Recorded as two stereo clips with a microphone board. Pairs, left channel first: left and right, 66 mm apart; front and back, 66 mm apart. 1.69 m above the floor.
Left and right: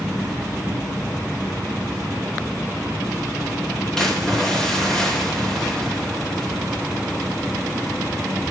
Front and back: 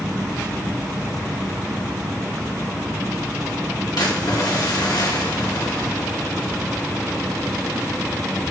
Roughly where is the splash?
Ahead.